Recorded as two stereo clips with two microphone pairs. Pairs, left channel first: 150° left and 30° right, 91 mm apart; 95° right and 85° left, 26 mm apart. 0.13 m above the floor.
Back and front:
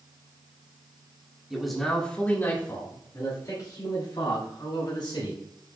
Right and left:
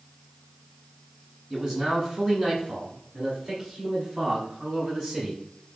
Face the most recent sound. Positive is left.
turn(degrees=145)